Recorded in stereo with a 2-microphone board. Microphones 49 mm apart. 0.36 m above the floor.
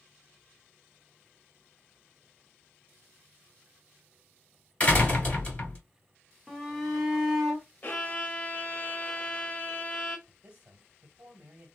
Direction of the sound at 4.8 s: 25° left (ahead or behind).